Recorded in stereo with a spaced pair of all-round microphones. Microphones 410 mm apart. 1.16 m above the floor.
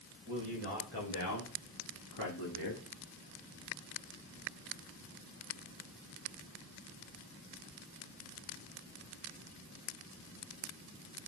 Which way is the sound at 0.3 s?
30° left (ahead or behind).